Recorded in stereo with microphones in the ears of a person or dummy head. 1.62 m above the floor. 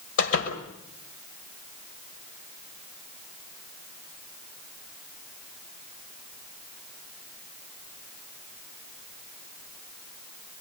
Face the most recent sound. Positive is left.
turn(degrees=75)  # may be behind; listen again after turning